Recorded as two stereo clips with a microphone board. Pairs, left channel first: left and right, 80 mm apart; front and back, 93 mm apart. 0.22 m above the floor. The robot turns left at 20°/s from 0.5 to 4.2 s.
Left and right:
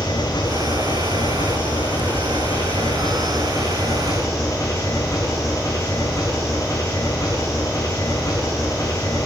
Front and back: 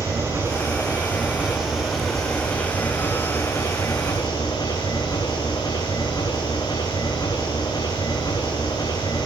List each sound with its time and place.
0.0 s an engine running: 120° left, 7.5 m; by 9.3 s 45° left, 7.5 m